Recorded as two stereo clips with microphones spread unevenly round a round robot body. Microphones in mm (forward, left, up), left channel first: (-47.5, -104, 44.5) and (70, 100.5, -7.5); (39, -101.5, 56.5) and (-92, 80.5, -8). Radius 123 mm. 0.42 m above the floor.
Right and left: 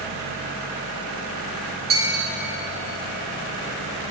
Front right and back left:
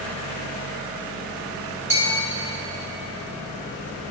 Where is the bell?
15° left, 4.5 m.